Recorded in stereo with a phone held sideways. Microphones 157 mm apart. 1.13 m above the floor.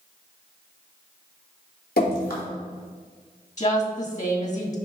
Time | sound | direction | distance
2.0 | dripping | 75° left (ahead or behind) | 3 m
3.6 | a woman speaking | 50° left (ahead or behind) | 2 m